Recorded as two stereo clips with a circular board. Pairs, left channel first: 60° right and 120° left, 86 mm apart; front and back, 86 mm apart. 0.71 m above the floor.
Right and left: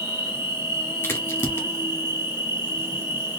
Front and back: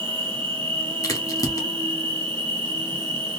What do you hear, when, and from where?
0.0 s an insect: straight behind, 1.0 m
1.0 s a crack: 15° right, 1.3 m